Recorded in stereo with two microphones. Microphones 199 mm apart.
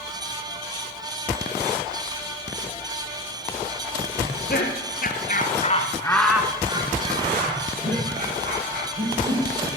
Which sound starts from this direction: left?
Laughter, at 4.2 s.